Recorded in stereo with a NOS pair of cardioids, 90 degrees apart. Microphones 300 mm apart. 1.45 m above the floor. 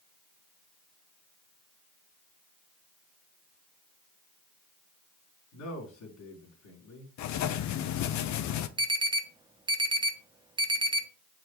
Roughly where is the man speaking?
Left.